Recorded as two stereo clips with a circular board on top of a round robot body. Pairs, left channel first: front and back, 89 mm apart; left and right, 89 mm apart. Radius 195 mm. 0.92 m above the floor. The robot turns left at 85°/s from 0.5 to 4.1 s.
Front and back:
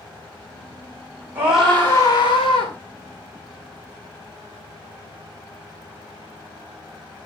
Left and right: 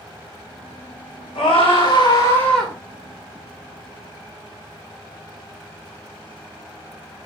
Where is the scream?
110° left, 4.5 m; by 2.7 s 5° right, 4.5 m.